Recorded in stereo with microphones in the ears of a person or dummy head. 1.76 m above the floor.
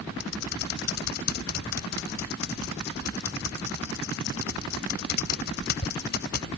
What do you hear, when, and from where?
0.2 s typing on a keyboard: 60° left (ahead or behind)